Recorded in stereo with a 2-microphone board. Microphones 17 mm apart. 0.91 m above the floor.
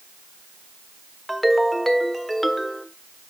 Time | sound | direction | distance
1.3 | a ringtone | 10° left (ahead or behind) | 1.5 m